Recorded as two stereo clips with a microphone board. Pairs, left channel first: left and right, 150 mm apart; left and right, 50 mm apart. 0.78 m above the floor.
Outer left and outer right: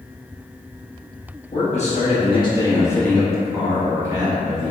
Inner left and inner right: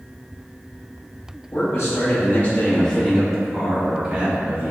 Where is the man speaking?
55° left (ahead or behind), 1.2 m; by 4.7 s 35° right (ahead or behind), 1.3 m.